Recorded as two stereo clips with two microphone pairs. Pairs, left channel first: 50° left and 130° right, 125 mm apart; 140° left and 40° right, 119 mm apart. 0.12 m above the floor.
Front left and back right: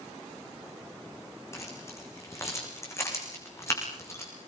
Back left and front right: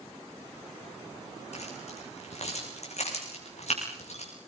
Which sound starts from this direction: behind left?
Keys jangling, at 1.5 s.